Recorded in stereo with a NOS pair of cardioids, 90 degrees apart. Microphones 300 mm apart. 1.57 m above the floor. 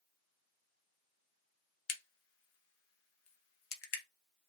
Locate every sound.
1.9 s a crack: 50° left, 0.7 m